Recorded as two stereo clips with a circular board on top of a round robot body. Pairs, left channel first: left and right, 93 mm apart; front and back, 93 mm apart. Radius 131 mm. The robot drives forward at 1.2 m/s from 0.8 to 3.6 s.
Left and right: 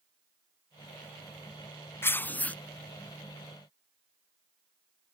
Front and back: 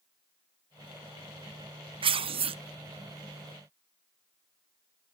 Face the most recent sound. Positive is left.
turn(degrees=170)